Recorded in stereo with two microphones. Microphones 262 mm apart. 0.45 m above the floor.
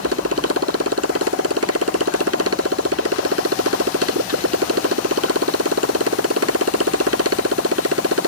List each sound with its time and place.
0.0 s a motorcycle: 65° right (ahead or behind)